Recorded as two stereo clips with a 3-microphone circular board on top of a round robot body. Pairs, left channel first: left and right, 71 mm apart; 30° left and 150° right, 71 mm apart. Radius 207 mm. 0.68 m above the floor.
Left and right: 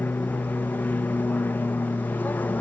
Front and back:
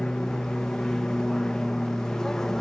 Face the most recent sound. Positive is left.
turn(degrees=105)